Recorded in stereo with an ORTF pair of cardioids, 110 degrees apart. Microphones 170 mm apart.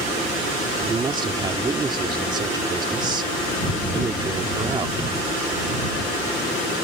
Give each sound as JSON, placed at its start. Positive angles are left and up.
{"t": 0.9, "sound": "a man speaking", "azimuth_deg": -25}